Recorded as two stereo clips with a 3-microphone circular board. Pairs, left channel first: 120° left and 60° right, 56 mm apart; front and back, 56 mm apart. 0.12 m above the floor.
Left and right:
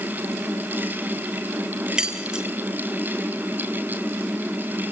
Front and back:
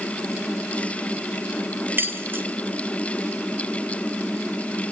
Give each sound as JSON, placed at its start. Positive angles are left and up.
{"t": 2.0, "sound": "keys jangling", "azimuth_deg": -135, "distance_m": 1.7}